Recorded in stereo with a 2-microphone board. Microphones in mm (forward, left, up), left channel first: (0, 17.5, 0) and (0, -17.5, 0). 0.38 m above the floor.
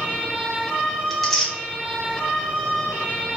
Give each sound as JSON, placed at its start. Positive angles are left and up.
{"t": 1.1, "sound": "tearing paper", "side_deg": 0, "distance_m": 1.7}